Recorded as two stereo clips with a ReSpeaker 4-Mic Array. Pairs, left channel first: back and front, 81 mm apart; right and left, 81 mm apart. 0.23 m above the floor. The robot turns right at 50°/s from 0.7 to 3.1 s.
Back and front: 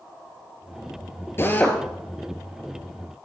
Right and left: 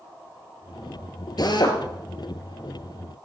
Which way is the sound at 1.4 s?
120° right.